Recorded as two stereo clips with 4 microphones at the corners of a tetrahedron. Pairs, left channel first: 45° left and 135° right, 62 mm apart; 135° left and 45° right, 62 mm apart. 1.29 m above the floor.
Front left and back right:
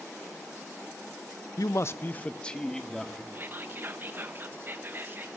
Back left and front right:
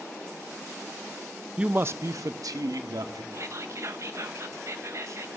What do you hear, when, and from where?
1.6 s a man speaking: 30° left, 0.8 m; by 3.2 s 40° right, 3 m
3.3 s whispering: 80° right, 1.2 m